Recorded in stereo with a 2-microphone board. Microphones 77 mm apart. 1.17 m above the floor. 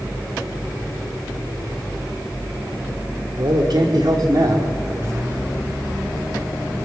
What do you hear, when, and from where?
3.4 s a man speaking: 75° right (ahead or behind), 3.5 m; by 5.5 s 30° right (ahead or behind), 3 m